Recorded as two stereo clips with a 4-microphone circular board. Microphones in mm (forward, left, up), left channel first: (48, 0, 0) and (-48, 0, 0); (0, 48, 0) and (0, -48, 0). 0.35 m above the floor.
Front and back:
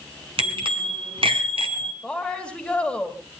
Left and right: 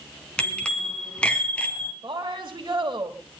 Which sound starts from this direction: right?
A woman speaking, at 2.0 s.